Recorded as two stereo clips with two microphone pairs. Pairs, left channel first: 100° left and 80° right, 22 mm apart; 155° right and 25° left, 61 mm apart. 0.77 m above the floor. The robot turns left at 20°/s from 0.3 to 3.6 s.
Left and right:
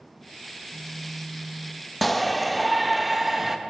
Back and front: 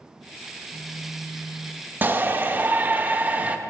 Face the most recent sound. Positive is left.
turn(degrees=-10)